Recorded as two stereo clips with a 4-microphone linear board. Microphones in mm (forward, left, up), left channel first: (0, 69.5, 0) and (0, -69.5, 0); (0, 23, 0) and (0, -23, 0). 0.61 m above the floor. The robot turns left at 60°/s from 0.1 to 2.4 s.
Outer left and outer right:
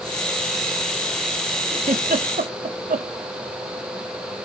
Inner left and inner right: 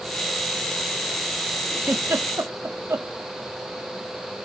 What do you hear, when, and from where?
1.8 s a giggle: 55° right (ahead or behind), 0.8 m; by 3.1 s 75° right (ahead or behind), 0.8 m